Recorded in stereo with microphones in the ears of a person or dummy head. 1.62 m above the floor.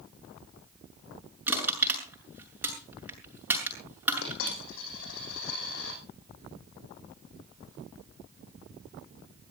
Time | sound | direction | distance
1.5 | crushing | 15° right (ahead or behind) | 6.5 m
4.2 | a dropped coin | 75° left (ahead or behind) | 7 m